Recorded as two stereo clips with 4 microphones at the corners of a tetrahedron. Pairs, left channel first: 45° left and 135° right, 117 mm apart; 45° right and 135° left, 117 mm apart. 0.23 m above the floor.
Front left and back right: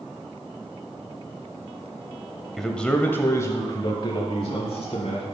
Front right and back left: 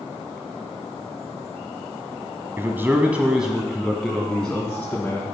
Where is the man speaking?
130° left, 1.0 m; by 5.2 s 30° left, 1.7 m.